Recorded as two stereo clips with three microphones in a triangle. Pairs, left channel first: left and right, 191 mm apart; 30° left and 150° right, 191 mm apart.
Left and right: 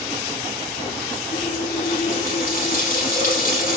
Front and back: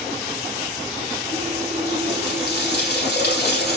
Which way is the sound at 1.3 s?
55° left.